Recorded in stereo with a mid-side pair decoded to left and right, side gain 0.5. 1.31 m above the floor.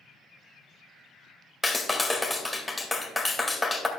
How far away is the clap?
About 2 m.